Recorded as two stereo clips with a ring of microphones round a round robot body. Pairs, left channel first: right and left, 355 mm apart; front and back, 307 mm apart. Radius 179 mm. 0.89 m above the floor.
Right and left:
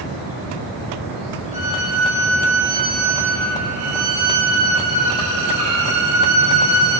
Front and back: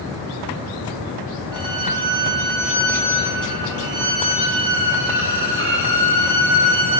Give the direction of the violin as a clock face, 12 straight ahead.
8 o'clock.